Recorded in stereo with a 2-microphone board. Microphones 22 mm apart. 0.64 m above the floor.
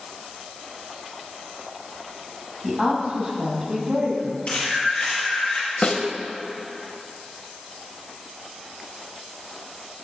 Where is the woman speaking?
5° left (ahead or behind), 4 m; by 4.4 s 30° right (ahead or behind), 4.5 m.